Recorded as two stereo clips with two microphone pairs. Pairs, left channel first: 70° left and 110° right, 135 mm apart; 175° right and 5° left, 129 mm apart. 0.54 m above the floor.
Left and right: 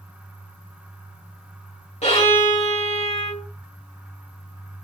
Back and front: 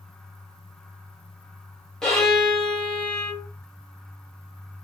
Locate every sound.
2.0 s a violin: 100° left, 1.6 m